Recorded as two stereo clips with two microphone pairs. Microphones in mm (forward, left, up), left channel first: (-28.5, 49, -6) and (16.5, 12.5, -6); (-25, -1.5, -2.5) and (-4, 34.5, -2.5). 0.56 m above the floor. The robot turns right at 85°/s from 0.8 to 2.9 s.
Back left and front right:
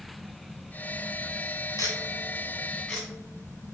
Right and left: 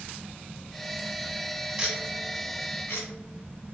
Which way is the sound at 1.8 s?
135° left.